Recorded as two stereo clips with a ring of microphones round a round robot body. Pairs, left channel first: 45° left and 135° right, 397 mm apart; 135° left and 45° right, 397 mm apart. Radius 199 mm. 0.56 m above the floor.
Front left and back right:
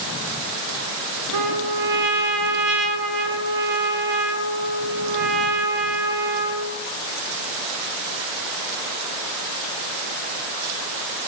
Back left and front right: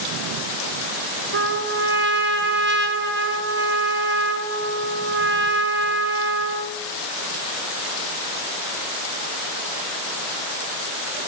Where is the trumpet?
110° right, 3.5 m.